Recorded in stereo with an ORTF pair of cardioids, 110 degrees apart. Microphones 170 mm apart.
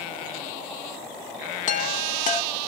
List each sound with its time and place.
1.7 s a chime: 50° left, 1.8 m